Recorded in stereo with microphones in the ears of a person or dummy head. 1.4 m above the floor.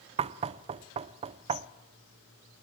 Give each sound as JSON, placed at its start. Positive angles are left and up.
{"t": 0.2, "sound": "knocking", "side_deg": -30, "distance_m": 0.5}